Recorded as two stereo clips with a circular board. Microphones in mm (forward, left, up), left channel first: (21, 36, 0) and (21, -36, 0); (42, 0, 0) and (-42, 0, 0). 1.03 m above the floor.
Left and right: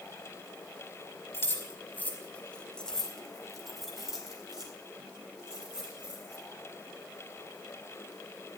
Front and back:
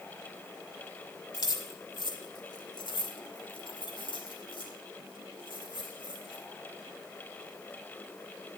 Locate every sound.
1.3 s keys jangling: 35° left, 2 m; by 6.4 s 15° right, 5.5 m